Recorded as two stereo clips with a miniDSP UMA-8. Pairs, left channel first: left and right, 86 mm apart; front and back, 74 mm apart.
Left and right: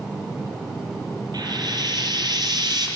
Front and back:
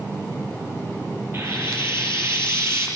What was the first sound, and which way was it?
Frying, 125° right.